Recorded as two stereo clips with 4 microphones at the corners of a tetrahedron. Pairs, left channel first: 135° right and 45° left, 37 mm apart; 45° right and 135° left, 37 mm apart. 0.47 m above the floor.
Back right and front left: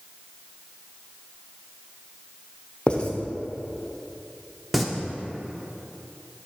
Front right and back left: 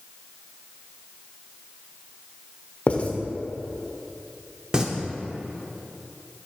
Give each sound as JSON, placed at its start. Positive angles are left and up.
{"t": 2.9, "sound": "writing", "azimuth_deg": -80, "distance_m": 0.6}
{"t": 4.7, "sound": "singing", "azimuth_deg": 130, "distance_m": 0.6}